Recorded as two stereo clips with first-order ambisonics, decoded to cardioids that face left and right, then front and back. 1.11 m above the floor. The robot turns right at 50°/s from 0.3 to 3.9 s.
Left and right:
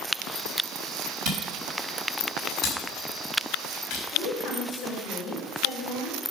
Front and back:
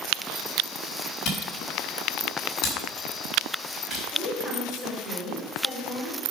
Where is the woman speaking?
80° left, 3.5 m.